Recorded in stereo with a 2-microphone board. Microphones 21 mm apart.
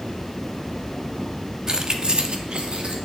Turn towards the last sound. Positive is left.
turn(degrees=-65)  # may be behind; listen again after turning